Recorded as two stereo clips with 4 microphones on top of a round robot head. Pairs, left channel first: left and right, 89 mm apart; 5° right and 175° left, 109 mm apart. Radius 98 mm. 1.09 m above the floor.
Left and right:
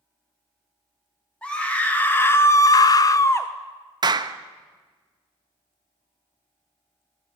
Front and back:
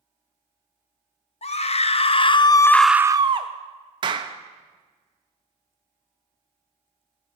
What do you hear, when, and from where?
1.4 s a scream: 10° left, 1.3 m; by 3.5 s 150° left, 0.7 m
4.0 s a clap: 130° right, 0.7 m